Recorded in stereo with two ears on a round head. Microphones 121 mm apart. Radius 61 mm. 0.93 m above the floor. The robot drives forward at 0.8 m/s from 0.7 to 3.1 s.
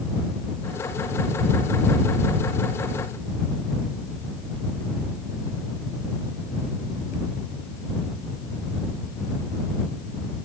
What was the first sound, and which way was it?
Only background noise.